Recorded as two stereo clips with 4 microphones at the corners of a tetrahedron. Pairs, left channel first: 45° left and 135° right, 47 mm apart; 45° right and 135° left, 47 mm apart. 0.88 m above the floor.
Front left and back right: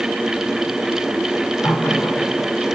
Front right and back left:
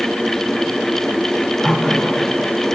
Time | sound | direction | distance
1.6 | a running tap | 35° left | 2.5 m